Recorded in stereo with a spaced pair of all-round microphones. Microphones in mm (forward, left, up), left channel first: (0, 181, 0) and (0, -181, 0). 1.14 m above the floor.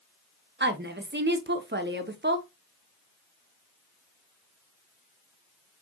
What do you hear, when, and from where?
0.6 s a woman speaking: 30° right (ahead or behind), 0.5 m